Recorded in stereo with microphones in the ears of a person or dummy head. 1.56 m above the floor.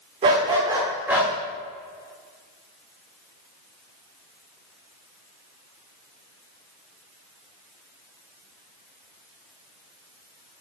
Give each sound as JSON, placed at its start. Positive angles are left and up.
{"t": 0.2, "sound": "a dog barking", "side_deg": -25, "distance_m": 1.3}